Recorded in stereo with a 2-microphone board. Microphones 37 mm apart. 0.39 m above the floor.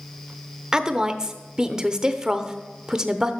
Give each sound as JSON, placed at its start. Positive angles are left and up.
{"t": 0.7, "sound": "a woman speaking", "side_deg": -15, "distance_m": 0.8}